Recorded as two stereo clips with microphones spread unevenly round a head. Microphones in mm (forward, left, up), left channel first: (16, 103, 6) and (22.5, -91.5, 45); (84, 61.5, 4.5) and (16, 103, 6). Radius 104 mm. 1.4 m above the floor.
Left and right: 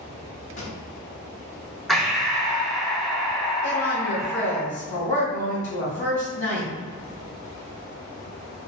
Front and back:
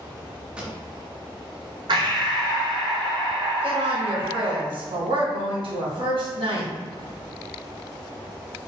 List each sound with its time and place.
0.6 s a pop: 100° left, 0.7 m
1.9 s breathing: 175° left, 0.6 m
3.6 s a woman speaking: 145° left, 1.9 m